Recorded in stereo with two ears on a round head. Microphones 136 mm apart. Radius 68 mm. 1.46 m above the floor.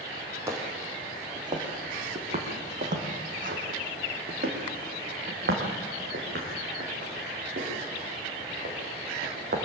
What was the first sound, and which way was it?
Footsteps, 15° right (ahead or behind).